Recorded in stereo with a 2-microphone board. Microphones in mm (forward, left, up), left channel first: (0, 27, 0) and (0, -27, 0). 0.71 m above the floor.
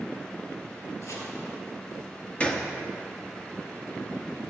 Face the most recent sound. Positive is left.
turn(degrees=25)  # may be behind; listen again after turning